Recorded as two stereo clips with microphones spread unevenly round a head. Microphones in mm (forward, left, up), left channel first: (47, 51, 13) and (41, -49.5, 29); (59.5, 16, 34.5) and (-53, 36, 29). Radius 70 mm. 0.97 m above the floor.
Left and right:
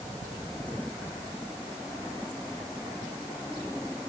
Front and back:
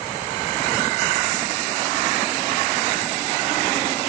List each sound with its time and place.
Only background noise.